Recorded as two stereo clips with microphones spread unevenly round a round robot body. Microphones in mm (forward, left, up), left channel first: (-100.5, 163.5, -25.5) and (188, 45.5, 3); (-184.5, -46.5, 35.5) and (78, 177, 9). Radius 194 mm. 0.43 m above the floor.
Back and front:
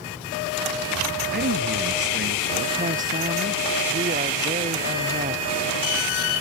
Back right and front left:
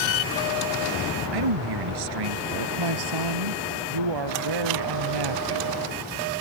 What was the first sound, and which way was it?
A man speaking, 35° left.